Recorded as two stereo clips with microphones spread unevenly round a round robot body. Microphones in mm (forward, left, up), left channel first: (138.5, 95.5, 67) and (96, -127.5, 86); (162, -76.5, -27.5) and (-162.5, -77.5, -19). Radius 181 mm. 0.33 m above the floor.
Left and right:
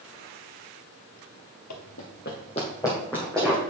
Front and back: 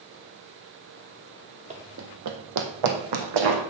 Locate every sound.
1.7 s running footsteps: 110° left, 0.6 m; by 3.6 s 170° left, 1.6 m